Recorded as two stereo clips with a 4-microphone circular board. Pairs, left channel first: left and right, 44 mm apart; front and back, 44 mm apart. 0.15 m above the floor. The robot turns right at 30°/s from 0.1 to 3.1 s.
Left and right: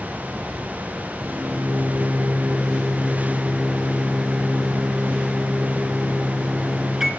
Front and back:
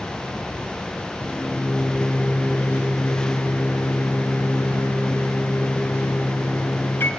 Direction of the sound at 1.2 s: 70° right.